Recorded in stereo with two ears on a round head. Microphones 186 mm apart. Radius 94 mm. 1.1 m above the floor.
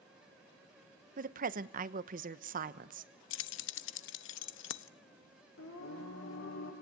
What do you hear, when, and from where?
1.2 s a woman speaking: 45° right (ahead or behind), 1.1 m
3.3 s keys jangling: 70° left (ahead or behind), 0.7 m
5.6 s singing: 80° left, 8 m